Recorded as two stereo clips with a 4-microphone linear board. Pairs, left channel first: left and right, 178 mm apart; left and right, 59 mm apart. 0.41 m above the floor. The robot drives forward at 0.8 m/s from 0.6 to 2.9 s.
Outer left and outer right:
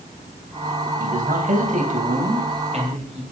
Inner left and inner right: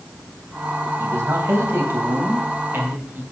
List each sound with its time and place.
1.0 s a man speaking: 55° right (ahead or behind), 2.5 m; by 3.2 s 40° right (ahead or behind), 3 m